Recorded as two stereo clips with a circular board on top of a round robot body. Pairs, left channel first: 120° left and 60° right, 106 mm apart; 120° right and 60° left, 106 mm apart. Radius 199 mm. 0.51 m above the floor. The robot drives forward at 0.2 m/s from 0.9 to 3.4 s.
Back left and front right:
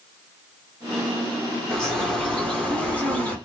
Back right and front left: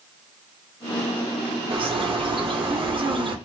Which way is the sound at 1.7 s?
40° left.